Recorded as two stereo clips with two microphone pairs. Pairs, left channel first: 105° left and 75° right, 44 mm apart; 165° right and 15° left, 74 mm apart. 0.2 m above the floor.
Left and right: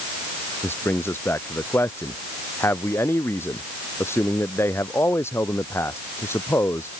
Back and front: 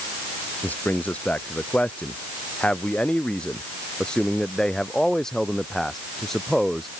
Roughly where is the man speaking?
Behind left.